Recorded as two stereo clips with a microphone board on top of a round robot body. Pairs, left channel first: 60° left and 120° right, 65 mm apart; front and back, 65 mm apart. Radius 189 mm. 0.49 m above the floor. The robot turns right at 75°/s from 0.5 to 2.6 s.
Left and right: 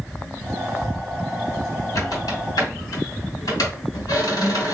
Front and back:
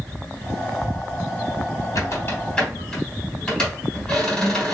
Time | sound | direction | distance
1.9 | a squeak | 30° left | 2 m